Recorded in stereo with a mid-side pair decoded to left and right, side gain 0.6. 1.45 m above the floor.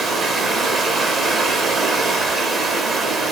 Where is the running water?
35° right, 0.7 m.